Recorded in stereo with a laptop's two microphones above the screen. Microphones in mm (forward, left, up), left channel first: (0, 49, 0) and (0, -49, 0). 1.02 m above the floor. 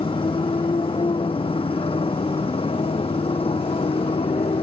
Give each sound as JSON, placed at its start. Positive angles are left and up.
{"t": 0.0, "sound": "a motorcycle", "side_deg": 70}